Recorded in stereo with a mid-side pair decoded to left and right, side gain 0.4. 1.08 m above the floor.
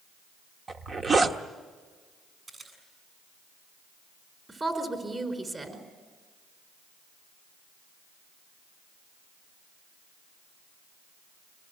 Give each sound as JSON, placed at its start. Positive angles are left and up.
{"t": 0.7, "sound": "a zipper", "azimuth_deg": -45, "distance_m": 1.3}
{"t": 2.5, "sound": "a camera shutter", "azimuth_deg": -40, "distance_m": 7.5}
{"t": 4.5, "sound": "a woman speaking", "azimuth_deg": -30, "distance_m": 4.5}